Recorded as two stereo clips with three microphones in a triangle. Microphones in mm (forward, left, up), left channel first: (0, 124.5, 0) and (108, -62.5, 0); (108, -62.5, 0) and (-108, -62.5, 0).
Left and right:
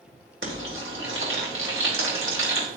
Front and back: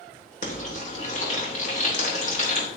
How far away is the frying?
About 2.5 m.